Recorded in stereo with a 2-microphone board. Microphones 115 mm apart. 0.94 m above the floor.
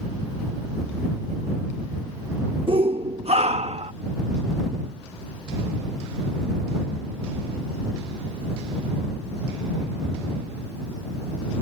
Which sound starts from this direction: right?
A shout, at 2.7 s.